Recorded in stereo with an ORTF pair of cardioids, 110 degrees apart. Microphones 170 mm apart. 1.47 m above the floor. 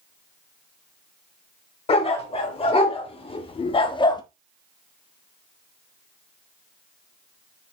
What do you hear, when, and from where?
1.9 s a dog barking: 35° left, 3.5 m; by 4.2 s 60° left, 1.0 m